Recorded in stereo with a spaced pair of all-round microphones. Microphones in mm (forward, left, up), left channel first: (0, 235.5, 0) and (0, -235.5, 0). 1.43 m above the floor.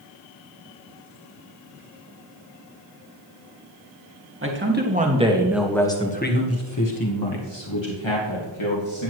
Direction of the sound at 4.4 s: 25° right (ahead or behind).